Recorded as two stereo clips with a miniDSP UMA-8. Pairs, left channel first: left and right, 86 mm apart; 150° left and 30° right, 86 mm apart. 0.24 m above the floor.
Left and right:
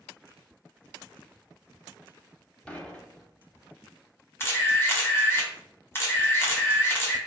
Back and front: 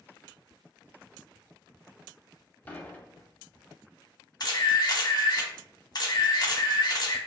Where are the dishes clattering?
140° left, 0.7 m.